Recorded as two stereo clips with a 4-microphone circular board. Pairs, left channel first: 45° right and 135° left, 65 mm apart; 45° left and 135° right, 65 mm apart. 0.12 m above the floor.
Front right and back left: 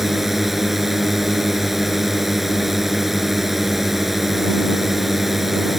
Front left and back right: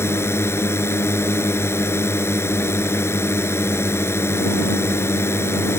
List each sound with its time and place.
0.0 s a drone: 50° left